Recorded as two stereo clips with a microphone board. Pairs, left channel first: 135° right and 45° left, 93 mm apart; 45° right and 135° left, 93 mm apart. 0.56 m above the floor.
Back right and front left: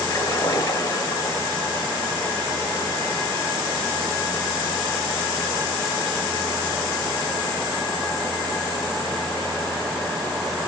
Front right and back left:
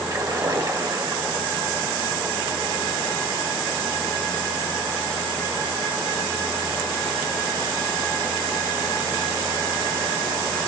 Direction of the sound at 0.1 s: 175° left.